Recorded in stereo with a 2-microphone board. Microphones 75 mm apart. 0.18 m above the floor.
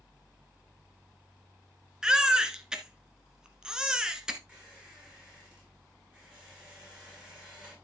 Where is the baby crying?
10° right (ahead or behind), 1.3 m.